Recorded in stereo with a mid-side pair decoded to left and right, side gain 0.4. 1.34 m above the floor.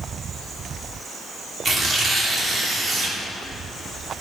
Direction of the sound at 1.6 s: 40° right.